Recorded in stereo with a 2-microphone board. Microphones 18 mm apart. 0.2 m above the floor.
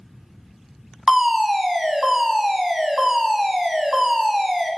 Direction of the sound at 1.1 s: 20° right (ahead or behind).